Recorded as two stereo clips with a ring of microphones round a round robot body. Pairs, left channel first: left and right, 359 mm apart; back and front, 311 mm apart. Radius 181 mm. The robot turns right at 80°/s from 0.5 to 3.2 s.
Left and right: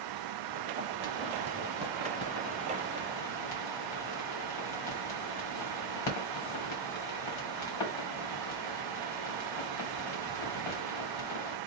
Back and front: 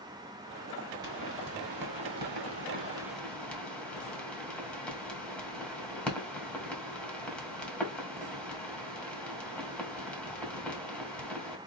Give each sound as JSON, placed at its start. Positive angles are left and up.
{"t": 1.0, "sound": "a pop", "azimuth_deg": -80, "distance_m": 3.0}